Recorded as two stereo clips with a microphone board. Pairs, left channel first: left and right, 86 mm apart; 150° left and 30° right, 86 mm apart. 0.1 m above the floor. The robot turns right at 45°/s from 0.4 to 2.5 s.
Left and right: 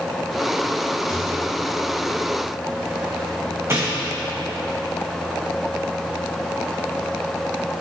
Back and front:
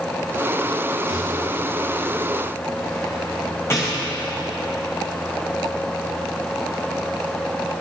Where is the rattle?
145° left, 3.5 m; by 4.1 s 150° right, 3.5 m.